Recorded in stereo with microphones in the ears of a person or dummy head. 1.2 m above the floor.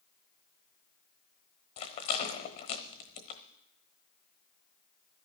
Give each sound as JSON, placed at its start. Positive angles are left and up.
{"t": 1.8, "sound": "a rattle", "side_deg": 25, "distance_m": 1.0}